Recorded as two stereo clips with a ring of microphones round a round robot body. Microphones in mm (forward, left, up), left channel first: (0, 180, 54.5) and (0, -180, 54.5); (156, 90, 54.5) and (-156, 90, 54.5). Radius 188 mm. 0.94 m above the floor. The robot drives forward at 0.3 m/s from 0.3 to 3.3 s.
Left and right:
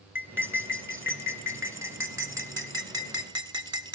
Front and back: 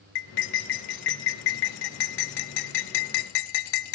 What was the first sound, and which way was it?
Cutlery clinking, 5° right.